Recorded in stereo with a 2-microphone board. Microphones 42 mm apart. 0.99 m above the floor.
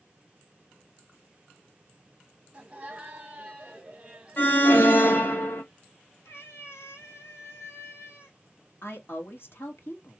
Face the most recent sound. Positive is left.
turn(degrees=60)  # may be behind; listen again after turning